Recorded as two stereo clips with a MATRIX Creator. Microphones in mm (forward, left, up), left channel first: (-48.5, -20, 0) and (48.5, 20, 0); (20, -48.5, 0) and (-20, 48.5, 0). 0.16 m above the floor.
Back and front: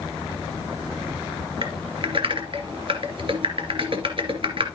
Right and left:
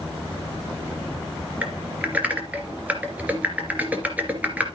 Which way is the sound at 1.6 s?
40° left.